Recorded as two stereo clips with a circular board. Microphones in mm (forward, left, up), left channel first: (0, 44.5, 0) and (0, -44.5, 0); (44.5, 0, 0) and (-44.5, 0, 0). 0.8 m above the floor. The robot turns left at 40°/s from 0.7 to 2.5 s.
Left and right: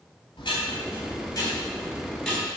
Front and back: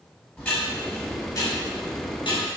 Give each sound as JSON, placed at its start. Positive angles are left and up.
{"t": 0.4, "sound": "ticking", "azimuth_deg": 65, "distance_m": 3.0}